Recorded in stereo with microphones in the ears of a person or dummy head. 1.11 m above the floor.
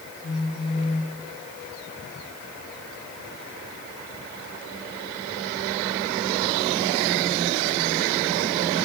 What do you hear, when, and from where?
0.2 s a phone buzzing: 30° left (ahead or behind), 1.2 m